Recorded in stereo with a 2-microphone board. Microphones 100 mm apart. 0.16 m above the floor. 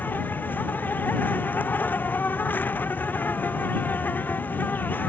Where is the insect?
15° left (ahead or behind).